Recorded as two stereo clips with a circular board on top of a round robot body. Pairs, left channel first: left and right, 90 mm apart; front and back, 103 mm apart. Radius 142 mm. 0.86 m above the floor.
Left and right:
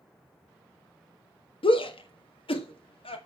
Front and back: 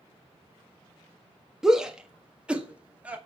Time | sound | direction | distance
1.6 | a shout | 95° left | 1.6 m